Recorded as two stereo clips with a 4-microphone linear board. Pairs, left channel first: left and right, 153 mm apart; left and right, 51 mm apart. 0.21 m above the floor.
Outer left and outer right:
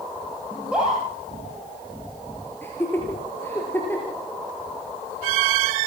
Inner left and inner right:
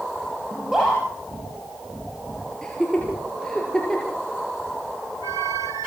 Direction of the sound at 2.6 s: 15° left (ahead or behind).